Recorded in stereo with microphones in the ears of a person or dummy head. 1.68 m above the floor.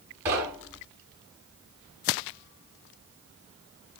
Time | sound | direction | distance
0.2 | knocking | 10° right (ahead or behind) | 3.5 m